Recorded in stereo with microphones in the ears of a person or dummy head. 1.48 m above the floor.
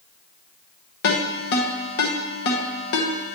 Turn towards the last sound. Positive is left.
turn(degrees=70)  # may be behind; listen again after turning